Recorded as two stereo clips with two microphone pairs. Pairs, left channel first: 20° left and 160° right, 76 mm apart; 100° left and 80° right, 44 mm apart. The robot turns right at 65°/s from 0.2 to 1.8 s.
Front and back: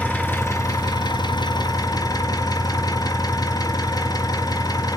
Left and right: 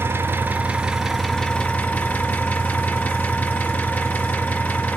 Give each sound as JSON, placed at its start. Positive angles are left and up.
{"t": 0.0, "sound": "an engine running", "azimuth_deg": -50, "distance_m": 3.0}